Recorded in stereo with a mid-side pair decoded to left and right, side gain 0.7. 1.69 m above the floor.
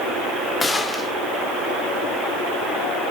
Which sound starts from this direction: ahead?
A gunshot, at 0.6 s.